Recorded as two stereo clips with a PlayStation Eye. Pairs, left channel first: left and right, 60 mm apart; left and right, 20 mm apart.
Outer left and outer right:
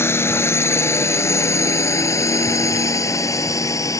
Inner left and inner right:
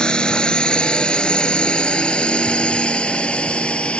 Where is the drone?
40° left (ahead or behind); by 4.0 s 60° left (ahead or behind).